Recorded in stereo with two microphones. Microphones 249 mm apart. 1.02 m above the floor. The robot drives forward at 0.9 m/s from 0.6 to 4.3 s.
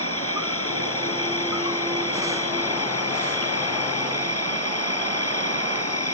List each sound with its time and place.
0.0 s an insect: 65° left (ahead or behind); by 6.2 s 75° left (ahead or behind)